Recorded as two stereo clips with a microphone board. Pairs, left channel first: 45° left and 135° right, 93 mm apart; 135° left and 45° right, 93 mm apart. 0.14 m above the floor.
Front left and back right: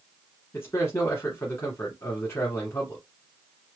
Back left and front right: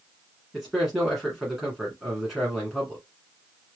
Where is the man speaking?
35° left, 1.4 m.